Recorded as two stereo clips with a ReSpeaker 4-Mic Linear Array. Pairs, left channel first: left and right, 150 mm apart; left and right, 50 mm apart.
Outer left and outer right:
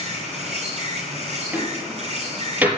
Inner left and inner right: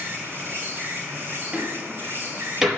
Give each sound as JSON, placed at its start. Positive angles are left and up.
{"t": 0.0, "sound": "an insect", "side_deg": -45, "distance_m": 7.0}
{"t": 1.5, "sound": "a door slam", "side_deg": -10, "distance_m": 4.0}